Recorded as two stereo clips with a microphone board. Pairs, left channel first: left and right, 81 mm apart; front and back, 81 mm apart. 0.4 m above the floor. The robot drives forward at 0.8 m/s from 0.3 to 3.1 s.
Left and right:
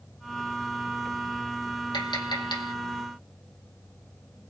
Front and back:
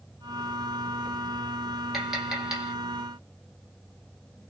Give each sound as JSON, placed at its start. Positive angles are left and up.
{"t": 1.9, "sound": "tapping", "azimuth_deg": 90, "distance_m": 4.5}